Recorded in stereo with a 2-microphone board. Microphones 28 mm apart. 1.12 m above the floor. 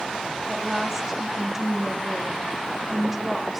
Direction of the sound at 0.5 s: 15° right (ahead or behind).